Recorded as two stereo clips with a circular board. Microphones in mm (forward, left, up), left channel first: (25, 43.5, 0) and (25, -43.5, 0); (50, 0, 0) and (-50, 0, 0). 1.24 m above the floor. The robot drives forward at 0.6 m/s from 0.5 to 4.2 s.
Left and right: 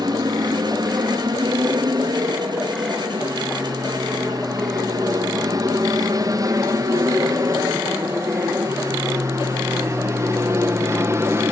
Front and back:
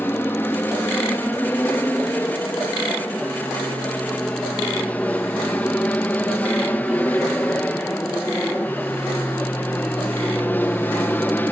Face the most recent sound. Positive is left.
turn(degrees=-55)